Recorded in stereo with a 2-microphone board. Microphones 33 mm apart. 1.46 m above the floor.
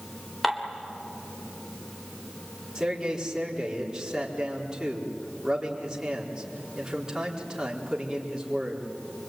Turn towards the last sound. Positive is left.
turn(degrees=-20)  # may be behind; listen again after turning